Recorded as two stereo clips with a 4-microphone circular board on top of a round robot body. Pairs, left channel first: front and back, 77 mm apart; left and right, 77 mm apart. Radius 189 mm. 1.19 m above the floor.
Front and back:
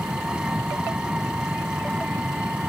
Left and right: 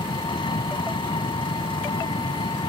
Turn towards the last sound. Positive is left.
turn(degrees=100)